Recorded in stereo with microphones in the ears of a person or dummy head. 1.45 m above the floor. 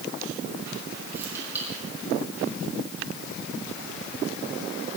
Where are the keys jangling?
15° right (ahead or behind), 6 m.